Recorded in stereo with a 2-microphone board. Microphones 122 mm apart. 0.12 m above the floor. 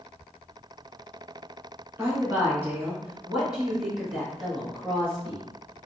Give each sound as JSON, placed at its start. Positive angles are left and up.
{"t": 2.0, "sound": "a woman speaking", "side_deg": -25, "distance_m": 1.2}